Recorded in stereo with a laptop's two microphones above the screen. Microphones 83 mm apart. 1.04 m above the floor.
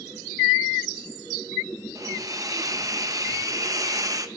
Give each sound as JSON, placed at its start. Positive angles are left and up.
{"t": 1.9, "sound": "a hiss", "side_deg": -45, "distance_m": 0.9}